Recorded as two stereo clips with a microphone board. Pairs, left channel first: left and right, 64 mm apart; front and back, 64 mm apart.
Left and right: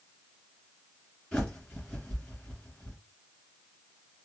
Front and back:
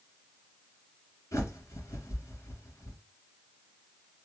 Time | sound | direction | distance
1.3 | a bird | 20° left | 1.7 m